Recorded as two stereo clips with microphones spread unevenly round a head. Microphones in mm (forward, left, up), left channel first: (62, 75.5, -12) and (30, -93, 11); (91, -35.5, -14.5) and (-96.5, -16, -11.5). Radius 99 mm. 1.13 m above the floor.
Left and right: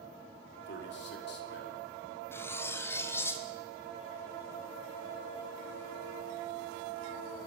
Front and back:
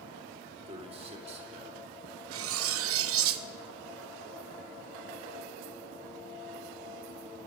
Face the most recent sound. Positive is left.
turn(degrees=160)